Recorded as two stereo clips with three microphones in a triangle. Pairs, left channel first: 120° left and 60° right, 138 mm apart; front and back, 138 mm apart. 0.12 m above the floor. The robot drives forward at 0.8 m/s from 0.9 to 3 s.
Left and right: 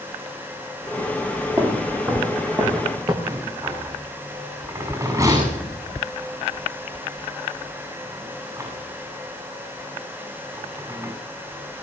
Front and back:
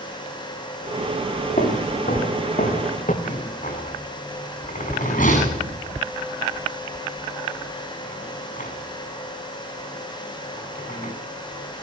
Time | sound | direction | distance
1.6 | footsteps | straight ahead | 8 m
3.2 | a rattle | 5° left | 8.5 m